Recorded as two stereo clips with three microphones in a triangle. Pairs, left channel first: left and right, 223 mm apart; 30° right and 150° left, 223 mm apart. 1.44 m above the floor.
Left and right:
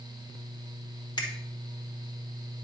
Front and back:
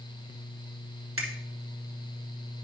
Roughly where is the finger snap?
Behind.